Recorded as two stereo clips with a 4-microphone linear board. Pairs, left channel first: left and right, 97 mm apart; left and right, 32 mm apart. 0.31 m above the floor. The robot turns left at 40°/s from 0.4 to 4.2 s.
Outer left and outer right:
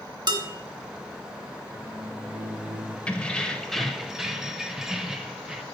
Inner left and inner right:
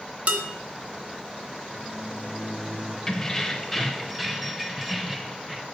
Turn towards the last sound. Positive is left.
turn(degrees=-5)  # may be behind; listen again after turning